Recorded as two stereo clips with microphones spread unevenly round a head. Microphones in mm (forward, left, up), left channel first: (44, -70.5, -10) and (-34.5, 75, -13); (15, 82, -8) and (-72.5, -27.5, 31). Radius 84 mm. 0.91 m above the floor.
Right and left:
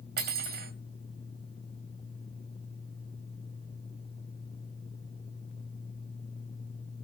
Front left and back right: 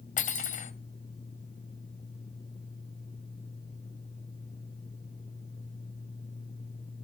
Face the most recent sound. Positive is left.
turn(degrees=85)